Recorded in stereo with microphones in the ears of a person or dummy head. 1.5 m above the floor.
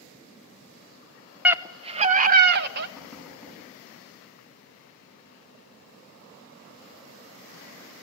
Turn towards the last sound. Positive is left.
turn(degrees=-5)  # may be behind; listen again after turning